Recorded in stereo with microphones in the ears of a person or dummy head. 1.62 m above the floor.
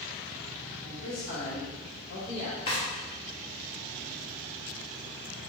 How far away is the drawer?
About 0.9 m.